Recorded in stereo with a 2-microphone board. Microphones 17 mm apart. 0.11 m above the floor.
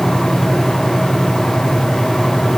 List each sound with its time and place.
Only background noise.